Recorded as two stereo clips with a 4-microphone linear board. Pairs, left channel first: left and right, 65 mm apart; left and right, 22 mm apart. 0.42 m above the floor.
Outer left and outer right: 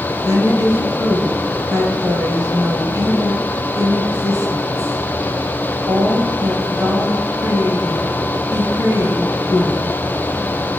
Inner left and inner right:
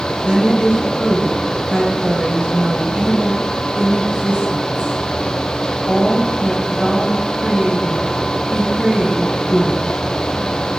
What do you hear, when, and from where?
0.2 s a woman speaking: 60° right (ahead or behind), 2.5 m